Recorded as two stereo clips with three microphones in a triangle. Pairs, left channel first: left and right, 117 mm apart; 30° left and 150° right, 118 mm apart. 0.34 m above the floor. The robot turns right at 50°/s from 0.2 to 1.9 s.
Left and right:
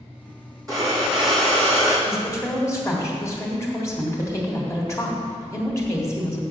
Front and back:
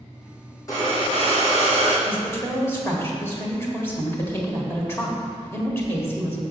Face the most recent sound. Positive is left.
turn(degrees=70)